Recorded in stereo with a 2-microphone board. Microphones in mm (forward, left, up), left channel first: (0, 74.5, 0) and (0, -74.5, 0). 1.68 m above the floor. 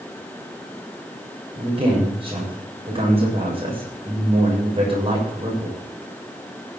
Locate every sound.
1.6 s a man speaking: 40° right (ahead or behind), 7 m